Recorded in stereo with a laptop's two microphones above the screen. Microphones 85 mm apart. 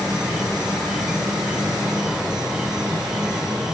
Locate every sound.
0.0 s an insect: 5° right (ahead or behind)